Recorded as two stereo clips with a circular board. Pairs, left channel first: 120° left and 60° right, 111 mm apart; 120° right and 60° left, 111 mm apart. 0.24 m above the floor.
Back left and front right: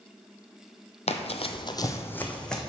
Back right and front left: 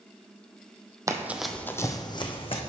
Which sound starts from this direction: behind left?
Running footsteps, at 1.1 s.